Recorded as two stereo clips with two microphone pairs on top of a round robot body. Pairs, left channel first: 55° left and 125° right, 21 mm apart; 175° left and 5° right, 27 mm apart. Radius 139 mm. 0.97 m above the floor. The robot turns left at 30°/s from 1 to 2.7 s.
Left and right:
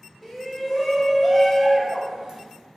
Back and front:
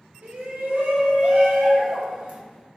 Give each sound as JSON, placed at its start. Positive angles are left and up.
{"t": 0.2, "sound": "a shout", "azimuth_deg": -20, "distance_m": 0.9}